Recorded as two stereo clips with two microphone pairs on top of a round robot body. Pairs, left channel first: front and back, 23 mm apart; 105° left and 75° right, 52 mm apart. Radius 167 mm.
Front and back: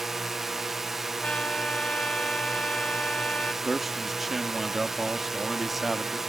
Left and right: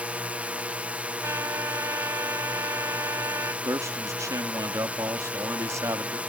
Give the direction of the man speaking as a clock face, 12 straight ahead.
3 o'clock.